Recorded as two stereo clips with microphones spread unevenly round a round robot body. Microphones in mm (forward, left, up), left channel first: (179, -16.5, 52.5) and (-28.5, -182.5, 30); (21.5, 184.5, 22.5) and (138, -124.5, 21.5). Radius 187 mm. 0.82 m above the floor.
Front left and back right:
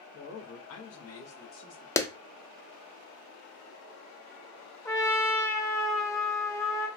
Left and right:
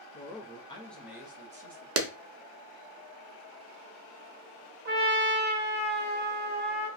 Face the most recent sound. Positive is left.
turn(degrees=-40)